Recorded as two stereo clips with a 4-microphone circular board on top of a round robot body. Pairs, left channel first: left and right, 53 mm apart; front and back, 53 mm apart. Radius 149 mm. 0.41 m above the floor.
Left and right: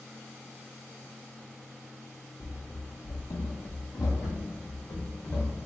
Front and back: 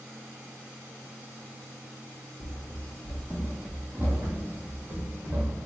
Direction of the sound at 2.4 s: 35° left.